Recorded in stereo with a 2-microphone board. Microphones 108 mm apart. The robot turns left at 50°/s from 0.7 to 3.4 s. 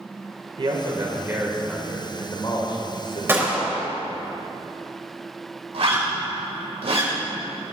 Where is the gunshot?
20° right (ahead or behind), 3 m; by 3.9 s 15° right (ahead or behind), 3 m.